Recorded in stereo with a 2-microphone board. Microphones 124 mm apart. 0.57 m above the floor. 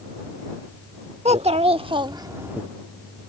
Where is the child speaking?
60° right (ahead or behind); by 2.6 s 10° right (ahead or behind).